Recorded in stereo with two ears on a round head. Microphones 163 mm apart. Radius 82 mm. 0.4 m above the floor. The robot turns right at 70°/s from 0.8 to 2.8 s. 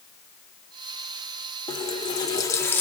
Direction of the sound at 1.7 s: 20° left (ahead or behind).